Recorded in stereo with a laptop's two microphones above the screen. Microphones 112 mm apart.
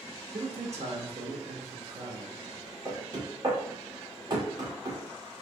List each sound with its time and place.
0.3 s a man speaking: 60° right (ahead or behind), 1.2 m
2.9 s knocking: 35° right (ahead or behind), 1.7 m